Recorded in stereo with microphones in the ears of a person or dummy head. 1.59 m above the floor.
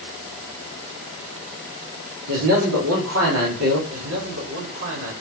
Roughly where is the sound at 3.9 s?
Right.